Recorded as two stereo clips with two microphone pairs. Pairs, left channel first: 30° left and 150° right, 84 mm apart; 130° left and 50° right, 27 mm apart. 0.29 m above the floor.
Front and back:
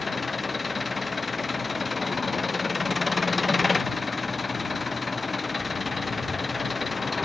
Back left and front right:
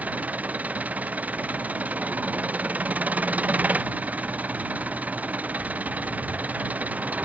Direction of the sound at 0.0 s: 60° right.